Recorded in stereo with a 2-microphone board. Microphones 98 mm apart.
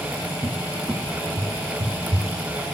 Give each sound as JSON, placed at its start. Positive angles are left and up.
{"t": 0.4, "sound": "a cupboard door", "side_deg": -45, "distance_m": 0.5}